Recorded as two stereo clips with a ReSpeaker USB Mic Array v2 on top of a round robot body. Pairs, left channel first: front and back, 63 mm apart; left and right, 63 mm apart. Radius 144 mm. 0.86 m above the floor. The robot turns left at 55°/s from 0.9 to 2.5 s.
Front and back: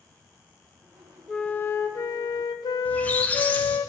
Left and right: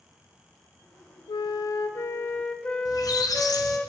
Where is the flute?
85° left, 0.5 m; by 3.9 s 15° left, 0.5 m.